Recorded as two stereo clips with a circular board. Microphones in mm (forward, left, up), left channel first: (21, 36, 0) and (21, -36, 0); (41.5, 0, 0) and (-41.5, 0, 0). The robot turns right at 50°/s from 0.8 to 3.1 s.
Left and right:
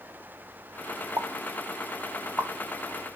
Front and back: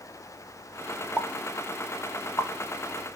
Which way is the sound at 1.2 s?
85° right.